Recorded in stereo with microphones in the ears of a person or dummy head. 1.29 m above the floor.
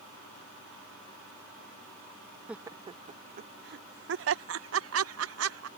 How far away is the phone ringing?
No phone ringing in this recording.